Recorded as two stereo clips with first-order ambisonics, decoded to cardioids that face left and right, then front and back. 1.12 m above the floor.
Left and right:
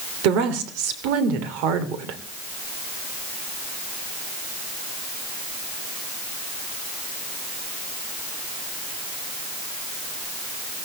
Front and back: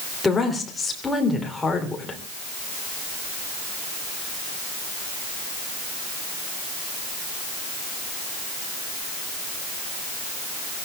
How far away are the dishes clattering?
I don't hear dishes clattering.